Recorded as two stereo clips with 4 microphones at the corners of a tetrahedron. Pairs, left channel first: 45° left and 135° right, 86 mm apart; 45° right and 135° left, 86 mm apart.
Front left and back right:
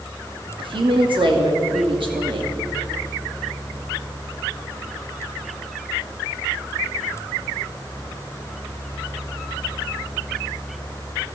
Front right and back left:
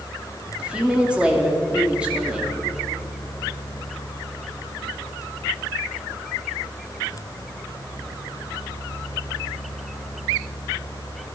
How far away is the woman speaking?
About 2 m.